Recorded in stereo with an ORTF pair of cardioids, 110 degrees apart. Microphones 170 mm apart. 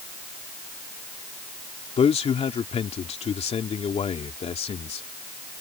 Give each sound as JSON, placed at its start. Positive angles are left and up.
{"t": 2.0, "sound": "a man speaking", "azimuth_deg": 40}